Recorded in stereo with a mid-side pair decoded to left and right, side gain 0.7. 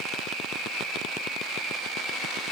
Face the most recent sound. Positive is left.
No sound to turn to.